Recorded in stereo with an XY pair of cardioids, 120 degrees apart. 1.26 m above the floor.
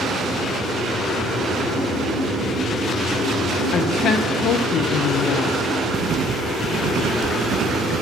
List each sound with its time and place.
3.7 s a woman speaking: 60° left, 0.9 m
5.9 s writing: 60° right, 0.7 m